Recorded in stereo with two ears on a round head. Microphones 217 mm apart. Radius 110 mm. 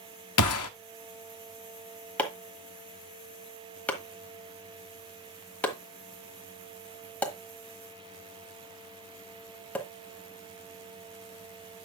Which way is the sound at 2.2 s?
5° left (ahead or behind).